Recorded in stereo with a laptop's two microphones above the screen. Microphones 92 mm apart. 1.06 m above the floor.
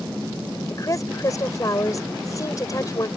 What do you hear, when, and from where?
0.7 s a woman speaking: 35° left (ahead or behind)